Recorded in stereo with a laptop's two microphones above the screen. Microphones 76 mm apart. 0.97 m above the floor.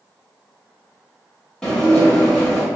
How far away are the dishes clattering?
About 1.3 m.